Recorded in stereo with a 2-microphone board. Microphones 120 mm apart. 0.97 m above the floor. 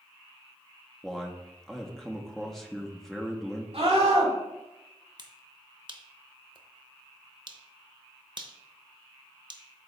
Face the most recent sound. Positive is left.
turn(degrees=-40)  # may be behind; listen again after turning